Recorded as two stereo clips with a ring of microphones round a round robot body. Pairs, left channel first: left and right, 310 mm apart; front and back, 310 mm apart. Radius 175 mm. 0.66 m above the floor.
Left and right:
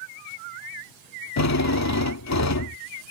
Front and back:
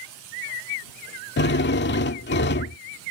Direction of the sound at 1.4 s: 55° left.